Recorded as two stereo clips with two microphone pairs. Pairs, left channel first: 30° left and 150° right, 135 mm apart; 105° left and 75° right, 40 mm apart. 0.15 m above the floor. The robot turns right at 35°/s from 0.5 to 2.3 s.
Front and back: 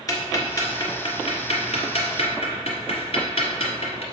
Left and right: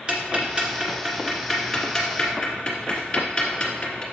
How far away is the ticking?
About 1.6 m.